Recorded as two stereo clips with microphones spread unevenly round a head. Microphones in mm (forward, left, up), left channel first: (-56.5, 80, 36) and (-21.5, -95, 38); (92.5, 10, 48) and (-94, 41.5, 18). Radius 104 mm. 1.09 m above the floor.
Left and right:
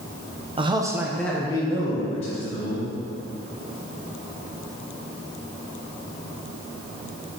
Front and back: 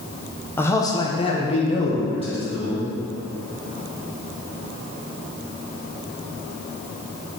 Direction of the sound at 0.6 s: 95° right.